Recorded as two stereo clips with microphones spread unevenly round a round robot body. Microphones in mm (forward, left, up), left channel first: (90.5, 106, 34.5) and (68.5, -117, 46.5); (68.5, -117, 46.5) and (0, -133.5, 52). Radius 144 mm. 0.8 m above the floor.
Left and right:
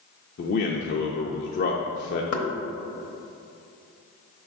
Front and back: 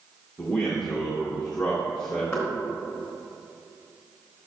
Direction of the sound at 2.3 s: 85° left.